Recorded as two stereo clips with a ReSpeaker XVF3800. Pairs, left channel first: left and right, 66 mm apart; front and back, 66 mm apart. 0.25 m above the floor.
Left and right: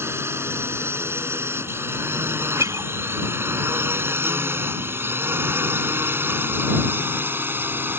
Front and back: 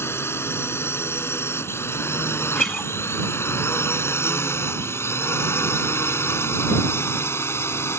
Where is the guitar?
80° right.